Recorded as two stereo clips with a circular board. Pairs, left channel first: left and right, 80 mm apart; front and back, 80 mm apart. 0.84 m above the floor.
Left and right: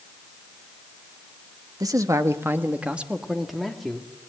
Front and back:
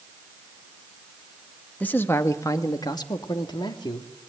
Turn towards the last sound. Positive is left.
turn(degrees=5)